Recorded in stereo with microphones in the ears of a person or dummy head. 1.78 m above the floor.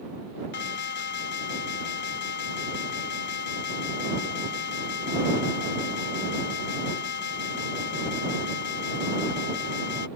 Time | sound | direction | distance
0.5 | an alarm | 55° left (ahead or behind) | ?